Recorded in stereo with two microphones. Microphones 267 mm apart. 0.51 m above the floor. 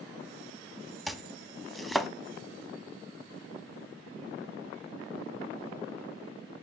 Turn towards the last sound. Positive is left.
turn(degrees=0)  # may be behind; listen again after turning